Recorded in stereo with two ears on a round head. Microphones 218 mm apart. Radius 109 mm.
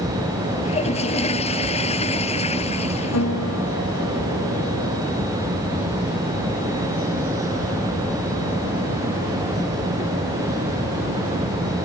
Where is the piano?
60° left (ahead or behind).